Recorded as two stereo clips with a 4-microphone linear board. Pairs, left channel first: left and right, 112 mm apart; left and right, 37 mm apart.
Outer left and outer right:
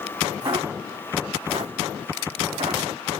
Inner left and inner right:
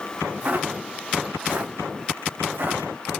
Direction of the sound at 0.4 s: 40° right (ahead or behind).